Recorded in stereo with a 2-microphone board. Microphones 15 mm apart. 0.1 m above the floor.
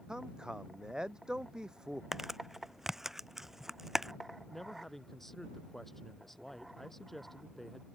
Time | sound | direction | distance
0.1 | a man speaking | 65° right (ahead or behind) | ?
2.1 | crumpling | 25° right (ahead or behind) | ?
4.5 | a man speaking | 20° left (ahead or behind) | ?